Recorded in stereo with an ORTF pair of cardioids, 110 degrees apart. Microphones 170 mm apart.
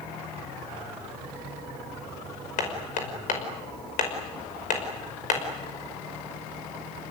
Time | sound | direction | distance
2.6 | hammering | 55° left | 5.5 m